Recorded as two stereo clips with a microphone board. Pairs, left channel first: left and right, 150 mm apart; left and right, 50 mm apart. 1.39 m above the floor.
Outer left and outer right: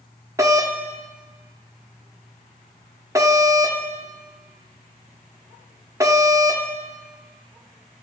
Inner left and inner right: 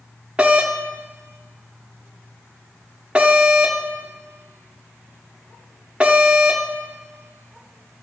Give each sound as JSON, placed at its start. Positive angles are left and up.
{"t": 0.4, "sound": "a doorbell", "side_deg": -20, "distance_m": 0.9}